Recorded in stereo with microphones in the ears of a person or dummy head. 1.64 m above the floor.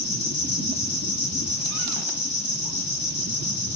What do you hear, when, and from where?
0.0 s an insect: 30° left (ahead or behind), 8 m